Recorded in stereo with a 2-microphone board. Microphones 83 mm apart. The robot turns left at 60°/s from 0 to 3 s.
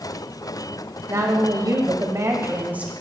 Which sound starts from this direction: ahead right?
A woman speaking, at 1.1 s.